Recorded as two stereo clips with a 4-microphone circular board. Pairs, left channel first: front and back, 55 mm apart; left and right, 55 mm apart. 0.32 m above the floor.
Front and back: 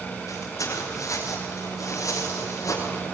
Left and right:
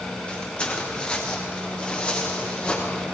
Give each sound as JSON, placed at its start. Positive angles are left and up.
{"t": 0.3, "sound": "footsteps", "azimuth_deg": 20, "distance_m": 5.5}